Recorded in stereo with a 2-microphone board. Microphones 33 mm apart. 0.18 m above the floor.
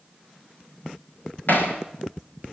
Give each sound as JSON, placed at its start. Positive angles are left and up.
{"t": 1.5, "sound": "hammering", "side_deg": 65, "distance_m": 9.5}